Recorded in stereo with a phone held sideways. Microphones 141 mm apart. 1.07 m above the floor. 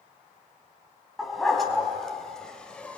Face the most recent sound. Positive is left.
turn(degrees=10)  # may be behind; listen again after turning